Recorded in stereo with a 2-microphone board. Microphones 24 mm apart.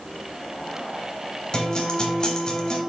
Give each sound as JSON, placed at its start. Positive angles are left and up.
{"t": 1.5, "sound": "a guitar", "side_deg": 35, "distance_m": 0.8}